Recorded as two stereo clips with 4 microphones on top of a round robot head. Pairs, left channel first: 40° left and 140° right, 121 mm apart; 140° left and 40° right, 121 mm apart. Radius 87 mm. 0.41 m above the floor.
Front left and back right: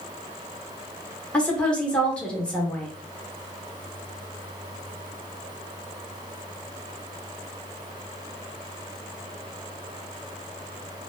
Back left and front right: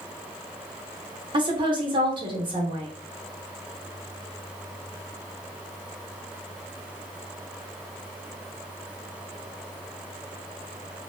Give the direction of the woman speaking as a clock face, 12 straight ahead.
1 o'clock.